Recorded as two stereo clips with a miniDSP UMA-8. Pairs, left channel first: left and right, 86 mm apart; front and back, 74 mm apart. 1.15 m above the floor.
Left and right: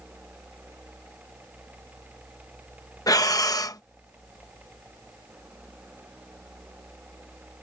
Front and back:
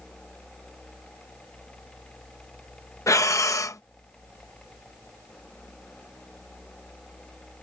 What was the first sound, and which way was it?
Breathing, 45° left.